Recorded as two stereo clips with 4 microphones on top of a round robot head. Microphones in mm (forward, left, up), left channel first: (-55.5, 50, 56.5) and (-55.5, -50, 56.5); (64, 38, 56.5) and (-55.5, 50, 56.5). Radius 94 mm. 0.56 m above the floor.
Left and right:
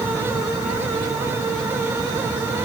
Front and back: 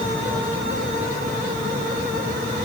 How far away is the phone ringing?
No phone ringing in this recording.